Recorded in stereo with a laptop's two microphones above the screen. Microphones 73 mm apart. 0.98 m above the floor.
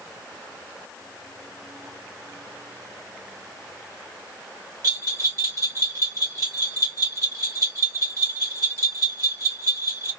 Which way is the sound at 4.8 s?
55° right (ahead or behind).